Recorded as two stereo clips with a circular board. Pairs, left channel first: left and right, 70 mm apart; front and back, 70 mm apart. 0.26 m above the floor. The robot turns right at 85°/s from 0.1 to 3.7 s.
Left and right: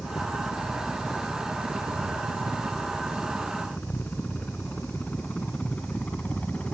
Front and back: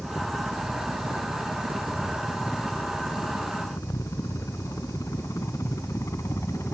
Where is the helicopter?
85° left; by 6.7 s 25° left.